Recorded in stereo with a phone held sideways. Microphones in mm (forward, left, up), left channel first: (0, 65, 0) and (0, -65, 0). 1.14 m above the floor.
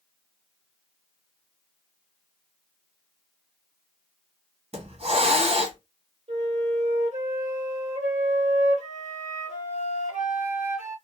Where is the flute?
60° right (ahead or behind), 1.4 m.